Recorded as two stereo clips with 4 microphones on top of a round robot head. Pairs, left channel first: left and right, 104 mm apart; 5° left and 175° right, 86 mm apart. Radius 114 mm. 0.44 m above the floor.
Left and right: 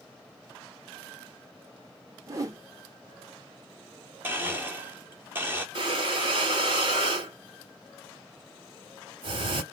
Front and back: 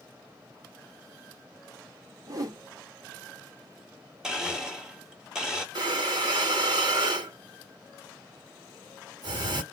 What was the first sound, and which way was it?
A whoosh, 140° right.